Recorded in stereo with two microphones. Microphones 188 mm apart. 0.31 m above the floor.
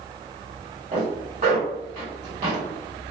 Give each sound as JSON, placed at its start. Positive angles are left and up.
{"t": 0.9, "sound": "a zipper", "side_deg": -45, "distance_m": 1.5}